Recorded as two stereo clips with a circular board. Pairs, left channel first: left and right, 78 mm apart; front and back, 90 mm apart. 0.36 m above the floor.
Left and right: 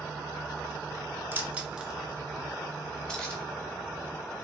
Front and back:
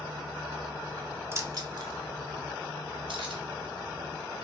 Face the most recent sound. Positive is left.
turn(degrees=170)